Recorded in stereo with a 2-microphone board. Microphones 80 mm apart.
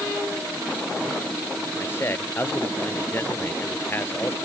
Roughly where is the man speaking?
Left.